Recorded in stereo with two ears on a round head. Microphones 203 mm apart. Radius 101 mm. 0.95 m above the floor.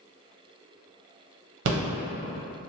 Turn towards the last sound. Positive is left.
turn(degrees=-55)  # may be behind; listen again after turning